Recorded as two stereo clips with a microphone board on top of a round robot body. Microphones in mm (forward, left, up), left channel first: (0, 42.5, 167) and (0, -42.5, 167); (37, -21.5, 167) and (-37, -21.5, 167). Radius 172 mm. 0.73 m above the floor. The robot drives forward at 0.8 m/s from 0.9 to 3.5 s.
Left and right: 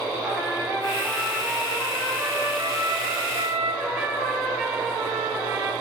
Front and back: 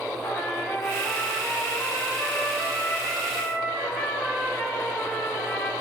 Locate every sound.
0.2 s a trumpet: 55° right, 3 m; by 5.7 s 100° right, 2.5 m